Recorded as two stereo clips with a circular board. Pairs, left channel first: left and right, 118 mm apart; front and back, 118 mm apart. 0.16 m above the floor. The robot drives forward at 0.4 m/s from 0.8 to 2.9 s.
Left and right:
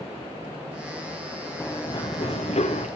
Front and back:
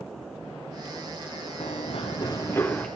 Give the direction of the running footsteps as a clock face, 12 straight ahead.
11 o'clock.